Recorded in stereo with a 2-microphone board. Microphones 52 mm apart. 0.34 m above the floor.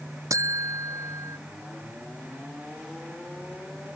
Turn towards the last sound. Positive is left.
turn(degrees=-80)